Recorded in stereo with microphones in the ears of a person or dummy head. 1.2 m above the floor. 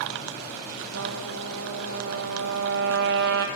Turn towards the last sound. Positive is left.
turn(degrees=-60)  # may be behind; listen again after turning